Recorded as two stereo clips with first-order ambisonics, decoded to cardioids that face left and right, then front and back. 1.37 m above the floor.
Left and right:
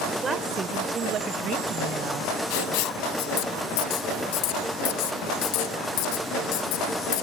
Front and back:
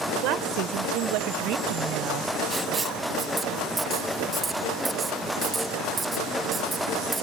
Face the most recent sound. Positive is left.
turn(degrees=105)